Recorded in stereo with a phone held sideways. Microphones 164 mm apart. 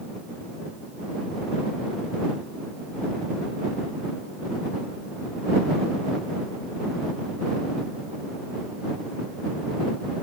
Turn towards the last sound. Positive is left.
No sound to turn to.